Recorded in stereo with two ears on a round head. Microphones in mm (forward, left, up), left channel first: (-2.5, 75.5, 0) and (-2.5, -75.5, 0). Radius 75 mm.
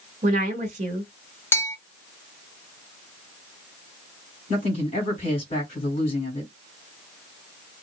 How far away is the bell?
About 0.6 m.